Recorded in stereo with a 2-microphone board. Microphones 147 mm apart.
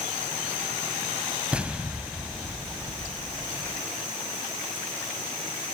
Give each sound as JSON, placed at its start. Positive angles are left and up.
{"t": 1.5, "sound": "an explosion", "side_deg": -10, "distance_m": 0.6}